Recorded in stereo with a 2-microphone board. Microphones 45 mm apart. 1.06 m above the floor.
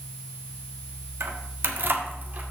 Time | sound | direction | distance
1.2 | keys jangling | 80° right | 1.3 m